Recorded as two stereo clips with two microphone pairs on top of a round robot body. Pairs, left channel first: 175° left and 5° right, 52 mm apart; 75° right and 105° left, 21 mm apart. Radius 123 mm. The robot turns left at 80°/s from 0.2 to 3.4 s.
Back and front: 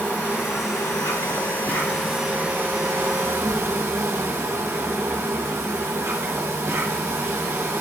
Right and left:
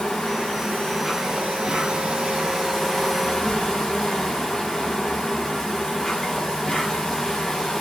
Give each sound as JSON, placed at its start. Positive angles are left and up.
{"t": 0.0, "sound": "an insect", "azimuth_deg": -120, "distance_m": 3.0}